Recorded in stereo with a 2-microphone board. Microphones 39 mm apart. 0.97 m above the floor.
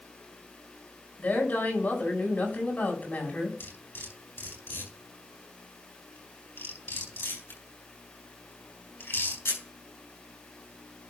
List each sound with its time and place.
1.2 s a woman speaking: 40° left (ahead or behind), 5.5 m
3.6 s cutlery clinking: 70° left (ahead or behind), 7 m